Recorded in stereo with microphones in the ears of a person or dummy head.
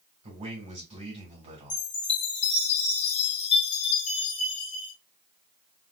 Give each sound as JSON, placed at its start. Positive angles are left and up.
{"t": 0.2, "sound": "a man speaking", "side_deg": -25, "distance_m": 2.0}
{"t": 1.7, "sound": "a chime", "side_deg": 30, "distance_m": 1.3}